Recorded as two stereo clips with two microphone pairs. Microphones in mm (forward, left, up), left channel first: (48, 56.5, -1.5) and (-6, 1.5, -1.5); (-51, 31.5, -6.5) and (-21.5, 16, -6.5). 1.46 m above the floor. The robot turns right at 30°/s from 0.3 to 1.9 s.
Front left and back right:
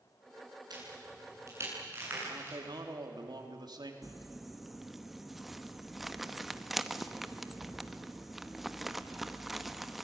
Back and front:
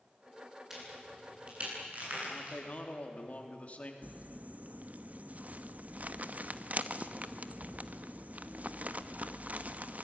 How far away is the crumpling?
About 1.0 m.